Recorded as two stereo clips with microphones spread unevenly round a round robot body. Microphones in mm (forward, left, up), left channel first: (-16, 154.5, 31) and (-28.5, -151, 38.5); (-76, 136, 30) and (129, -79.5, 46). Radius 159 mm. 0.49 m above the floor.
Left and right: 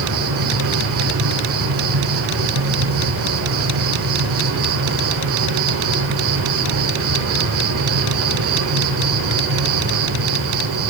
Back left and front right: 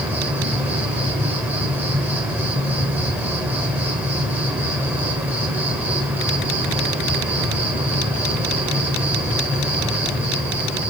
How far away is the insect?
About 1.3 m.